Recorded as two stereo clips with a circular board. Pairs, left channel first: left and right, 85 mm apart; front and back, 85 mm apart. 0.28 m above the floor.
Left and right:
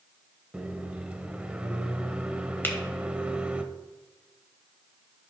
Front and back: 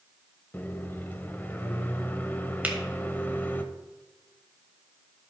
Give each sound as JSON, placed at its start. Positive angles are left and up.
{"t": 0.5, "sound": "a microwave", "azimuth_deg": -30, "distance_m": 0.7}
{"t": 2.6, "sound": "a finger snap", "azimuth_deg": 125, "distance_m": 1.5}